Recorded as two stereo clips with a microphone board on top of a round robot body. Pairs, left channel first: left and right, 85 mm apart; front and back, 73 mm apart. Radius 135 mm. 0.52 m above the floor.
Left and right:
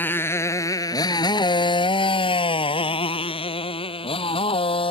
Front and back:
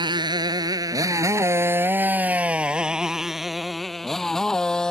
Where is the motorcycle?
160° left; by 4.9 s 80° left.